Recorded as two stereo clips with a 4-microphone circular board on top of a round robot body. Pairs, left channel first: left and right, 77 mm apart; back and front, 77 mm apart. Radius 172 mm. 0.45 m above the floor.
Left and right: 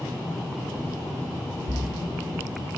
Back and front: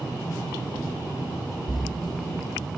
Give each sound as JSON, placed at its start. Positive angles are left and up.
{"t": 1.7, "sound": "a splash", "azimuth_deg": -90, "distance_m": 1.4}